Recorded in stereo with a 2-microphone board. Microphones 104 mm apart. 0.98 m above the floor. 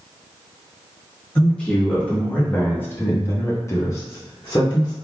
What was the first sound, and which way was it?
A man speaking, 10° left (ahead or behind).